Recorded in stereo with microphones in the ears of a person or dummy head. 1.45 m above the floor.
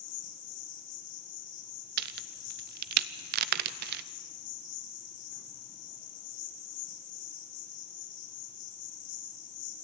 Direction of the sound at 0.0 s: 65° left (ahead or behind).